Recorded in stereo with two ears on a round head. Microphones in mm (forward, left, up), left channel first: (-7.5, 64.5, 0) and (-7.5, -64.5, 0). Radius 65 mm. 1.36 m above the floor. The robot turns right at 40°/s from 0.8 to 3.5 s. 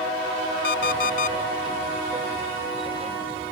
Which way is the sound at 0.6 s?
80° left.